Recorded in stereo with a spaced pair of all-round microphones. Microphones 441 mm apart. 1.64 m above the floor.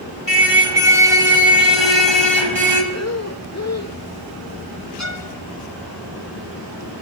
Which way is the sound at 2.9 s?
35° left (ahead or behind).